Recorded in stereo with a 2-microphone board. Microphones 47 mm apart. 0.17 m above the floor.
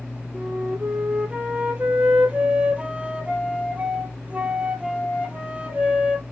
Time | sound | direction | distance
0.3 | a flute | 25° right (ahead or behind) | 0.8 m